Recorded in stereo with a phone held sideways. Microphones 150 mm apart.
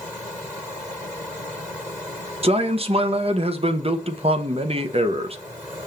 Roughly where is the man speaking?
Right.